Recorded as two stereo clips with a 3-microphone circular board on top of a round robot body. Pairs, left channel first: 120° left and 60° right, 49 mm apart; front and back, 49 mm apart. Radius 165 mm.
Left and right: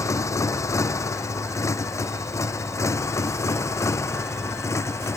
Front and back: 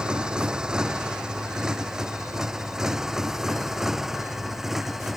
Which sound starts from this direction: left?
A motorcycle, at 0.0 s.